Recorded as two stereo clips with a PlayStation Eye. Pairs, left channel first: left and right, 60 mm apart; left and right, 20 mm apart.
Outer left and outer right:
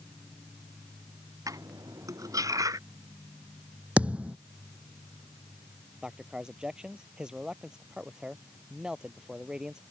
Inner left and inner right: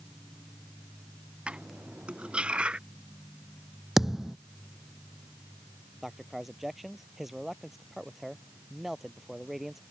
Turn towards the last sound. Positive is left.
turn(degrees=-15)  # may be behind; listen again after turning